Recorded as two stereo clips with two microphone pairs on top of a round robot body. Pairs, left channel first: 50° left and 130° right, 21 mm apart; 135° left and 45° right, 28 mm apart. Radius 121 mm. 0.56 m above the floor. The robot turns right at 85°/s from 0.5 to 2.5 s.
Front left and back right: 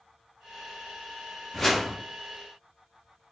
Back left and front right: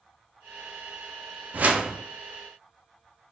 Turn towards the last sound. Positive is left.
turn(degrees=45)